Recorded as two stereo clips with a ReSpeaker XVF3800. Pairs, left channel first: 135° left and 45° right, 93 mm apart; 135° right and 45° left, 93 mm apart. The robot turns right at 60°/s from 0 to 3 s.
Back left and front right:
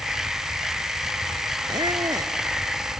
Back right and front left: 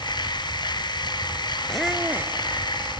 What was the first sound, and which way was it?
A squeak, 50° right.